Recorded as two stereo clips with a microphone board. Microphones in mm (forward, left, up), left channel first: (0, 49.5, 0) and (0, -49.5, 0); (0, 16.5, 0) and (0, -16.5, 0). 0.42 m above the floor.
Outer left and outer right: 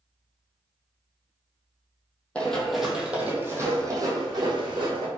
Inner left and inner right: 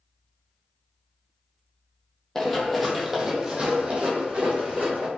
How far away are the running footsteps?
About 0.9 m.